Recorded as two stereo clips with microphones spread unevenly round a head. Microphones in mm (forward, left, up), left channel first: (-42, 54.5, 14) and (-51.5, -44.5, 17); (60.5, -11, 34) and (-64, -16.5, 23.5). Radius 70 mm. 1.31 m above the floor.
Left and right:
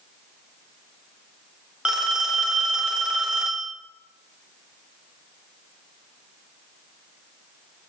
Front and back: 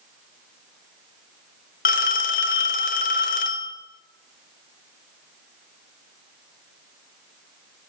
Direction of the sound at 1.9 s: 15° right.